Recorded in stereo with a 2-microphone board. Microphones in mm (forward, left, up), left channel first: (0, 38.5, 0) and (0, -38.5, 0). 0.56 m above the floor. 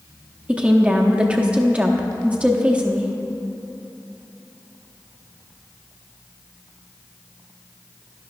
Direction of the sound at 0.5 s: 15° right (ahead or behind).